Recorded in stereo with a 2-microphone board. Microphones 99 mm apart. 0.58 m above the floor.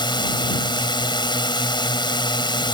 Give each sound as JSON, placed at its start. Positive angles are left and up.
{"t": 0.0, "sound": "a drone", "side_deg": 50}